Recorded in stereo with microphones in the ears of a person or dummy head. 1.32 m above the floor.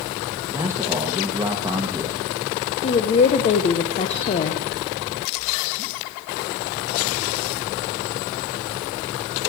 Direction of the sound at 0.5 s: 15° right (ahead or behind).